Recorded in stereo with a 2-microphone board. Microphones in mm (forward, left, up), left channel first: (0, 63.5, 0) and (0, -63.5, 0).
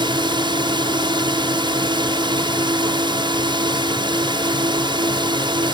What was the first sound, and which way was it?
A drone, 40° right (ahead or behind).